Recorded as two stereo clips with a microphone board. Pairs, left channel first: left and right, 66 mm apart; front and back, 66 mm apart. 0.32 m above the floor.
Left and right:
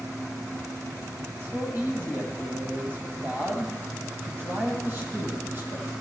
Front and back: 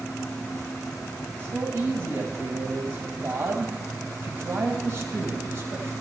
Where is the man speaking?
140° right, 1.4 m.